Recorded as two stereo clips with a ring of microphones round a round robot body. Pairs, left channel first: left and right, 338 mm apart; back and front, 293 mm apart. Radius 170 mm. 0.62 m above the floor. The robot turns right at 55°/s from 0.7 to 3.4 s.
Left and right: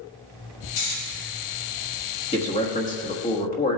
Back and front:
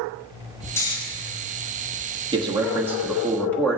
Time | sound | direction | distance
0.8 | snoring | 100° left | 3 m
2.3 | a man speaking | 40° left | 1.2 m